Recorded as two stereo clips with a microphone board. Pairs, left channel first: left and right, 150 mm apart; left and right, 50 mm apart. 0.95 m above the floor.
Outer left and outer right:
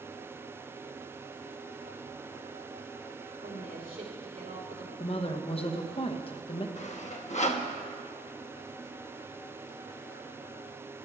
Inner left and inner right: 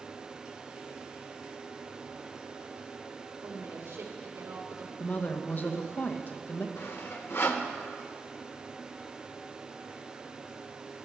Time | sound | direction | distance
3.4 | a woman speaking | 75° right (ahead or behind) | 2 m
5.0 | a woman speaking | 40° left (ahead or behind) | 0.9 m
6.8 | sawing | 50° left (ahead or behind) | 0.8 m